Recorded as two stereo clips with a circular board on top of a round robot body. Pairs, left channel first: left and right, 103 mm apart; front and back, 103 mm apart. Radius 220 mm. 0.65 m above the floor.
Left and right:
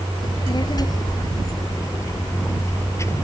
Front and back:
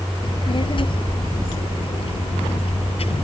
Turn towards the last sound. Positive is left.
turn(degrees=25)